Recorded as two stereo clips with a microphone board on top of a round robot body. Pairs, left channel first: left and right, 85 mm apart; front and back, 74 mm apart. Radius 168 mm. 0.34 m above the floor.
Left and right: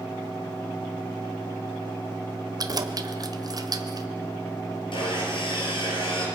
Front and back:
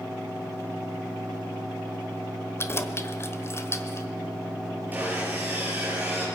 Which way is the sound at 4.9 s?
115° left.